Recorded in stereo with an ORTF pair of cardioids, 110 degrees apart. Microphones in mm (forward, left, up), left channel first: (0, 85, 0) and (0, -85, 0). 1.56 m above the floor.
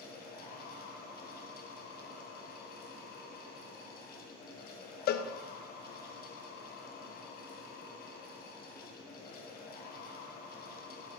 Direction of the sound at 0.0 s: 65° left.